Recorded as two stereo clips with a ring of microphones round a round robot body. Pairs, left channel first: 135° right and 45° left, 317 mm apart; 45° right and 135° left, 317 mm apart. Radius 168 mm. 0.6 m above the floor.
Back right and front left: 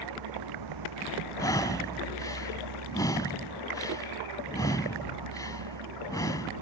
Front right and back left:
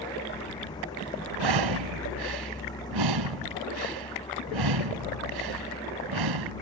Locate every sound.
0.0 s a vehicle: 35° left
1.4 s breathing: 145° left